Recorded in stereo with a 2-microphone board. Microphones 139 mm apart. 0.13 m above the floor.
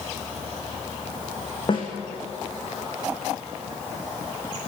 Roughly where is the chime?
I don't hear a chime.